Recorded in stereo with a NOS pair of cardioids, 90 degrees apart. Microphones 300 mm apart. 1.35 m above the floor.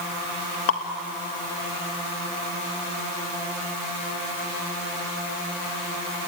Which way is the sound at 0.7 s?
50° left.